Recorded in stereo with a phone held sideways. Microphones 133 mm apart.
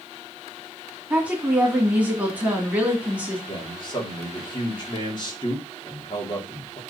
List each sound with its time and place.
1.1 s a woman speaking: 10° right (ahead or behind), 2.5 m
3.5 s a man speaking: 35° left (ahead or behind), 2.5 m